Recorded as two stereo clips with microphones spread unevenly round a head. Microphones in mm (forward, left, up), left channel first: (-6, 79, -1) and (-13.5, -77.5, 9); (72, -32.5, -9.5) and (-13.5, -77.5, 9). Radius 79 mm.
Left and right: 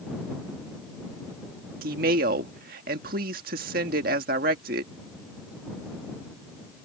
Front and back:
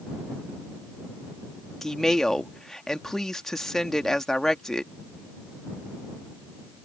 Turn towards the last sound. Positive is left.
turn(degrees=-55)